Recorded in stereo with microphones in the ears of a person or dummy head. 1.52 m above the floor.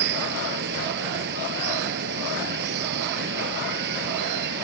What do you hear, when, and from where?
0.0 s running water: 65° right (ahead or behind)